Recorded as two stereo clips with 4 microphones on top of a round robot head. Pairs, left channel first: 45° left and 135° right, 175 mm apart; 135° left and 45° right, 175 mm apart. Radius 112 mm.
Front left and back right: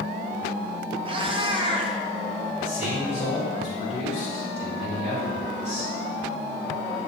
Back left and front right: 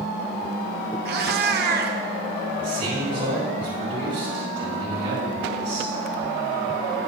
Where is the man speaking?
5° right, 4 m.